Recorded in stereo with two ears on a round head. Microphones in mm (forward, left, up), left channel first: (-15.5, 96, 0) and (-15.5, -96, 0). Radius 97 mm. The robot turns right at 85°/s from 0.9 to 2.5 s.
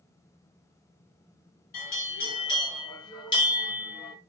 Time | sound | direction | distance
1.7 | a bell | 95° left | 1.2 m